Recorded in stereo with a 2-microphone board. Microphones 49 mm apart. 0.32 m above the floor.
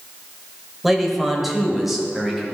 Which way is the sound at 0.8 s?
Centre (ahead or behind).